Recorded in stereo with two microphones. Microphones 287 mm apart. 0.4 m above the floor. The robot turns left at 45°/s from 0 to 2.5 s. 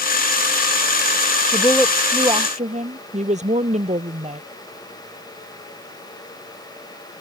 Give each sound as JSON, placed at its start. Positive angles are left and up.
{"t": 1.5, "sound": "a woman speaking", "azimuth_deg": 20}